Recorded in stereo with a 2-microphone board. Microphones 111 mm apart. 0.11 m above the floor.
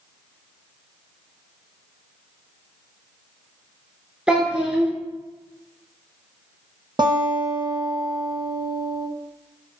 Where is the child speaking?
10° right (ahead or behind), 0.9 m.